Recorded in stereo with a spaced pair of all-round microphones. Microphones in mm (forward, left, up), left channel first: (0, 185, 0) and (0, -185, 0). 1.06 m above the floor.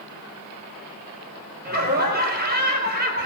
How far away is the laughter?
About 5 m.